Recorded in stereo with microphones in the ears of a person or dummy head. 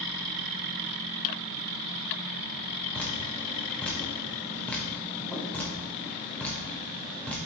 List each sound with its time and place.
2.9 s dripping: centre (ahead or behind), 0.8 m